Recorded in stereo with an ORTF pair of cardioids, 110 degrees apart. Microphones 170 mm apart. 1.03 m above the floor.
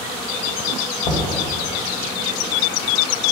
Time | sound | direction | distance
1.0 | knocking | 55° left | 2 m